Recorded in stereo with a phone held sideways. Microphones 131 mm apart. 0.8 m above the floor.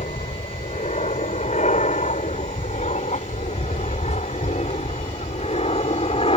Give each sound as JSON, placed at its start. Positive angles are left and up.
{"t": 0.0, "sound": "an aircraft", "side_deg": 65}